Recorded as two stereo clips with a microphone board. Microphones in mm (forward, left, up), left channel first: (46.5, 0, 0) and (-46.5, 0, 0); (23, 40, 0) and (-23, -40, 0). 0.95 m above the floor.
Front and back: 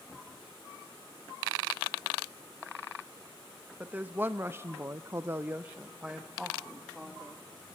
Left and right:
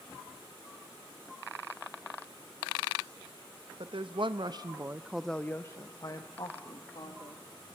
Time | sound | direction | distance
3.8 | a woman speaking | 110° right | 1.1 m